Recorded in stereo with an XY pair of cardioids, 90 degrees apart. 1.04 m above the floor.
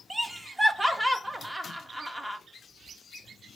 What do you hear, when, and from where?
0.1 s laughter: 15° right, 1.0 m